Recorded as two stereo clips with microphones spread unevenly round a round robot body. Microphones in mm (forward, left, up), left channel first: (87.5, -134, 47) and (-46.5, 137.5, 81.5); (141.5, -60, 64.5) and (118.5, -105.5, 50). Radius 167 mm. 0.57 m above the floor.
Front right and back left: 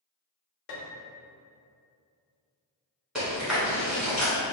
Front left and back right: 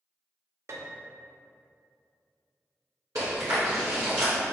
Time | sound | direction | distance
0.7 | a piano | 80° right | 0.6 m
3.1 | chewing | 160° right | 0.9 m